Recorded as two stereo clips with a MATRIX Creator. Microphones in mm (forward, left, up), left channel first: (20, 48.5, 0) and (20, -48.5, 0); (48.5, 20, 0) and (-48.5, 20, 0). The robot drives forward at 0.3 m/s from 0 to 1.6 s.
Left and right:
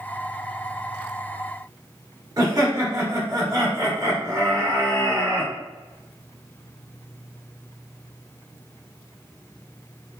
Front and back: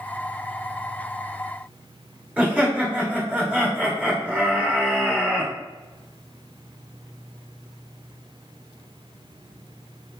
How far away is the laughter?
About 1.2 m.